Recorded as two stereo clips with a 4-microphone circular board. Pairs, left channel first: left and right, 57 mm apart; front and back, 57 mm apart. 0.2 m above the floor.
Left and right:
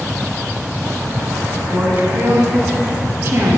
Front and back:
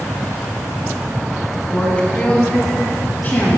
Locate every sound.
1.7 s a woman speaking: 65° right, 1.2 m; by 3.6 s 50° right, 2 m